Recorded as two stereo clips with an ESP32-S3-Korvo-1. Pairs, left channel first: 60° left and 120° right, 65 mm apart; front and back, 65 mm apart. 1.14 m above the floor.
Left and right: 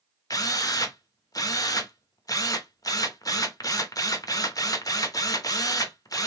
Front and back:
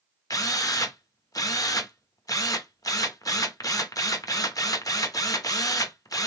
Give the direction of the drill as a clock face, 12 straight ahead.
11 o'clock.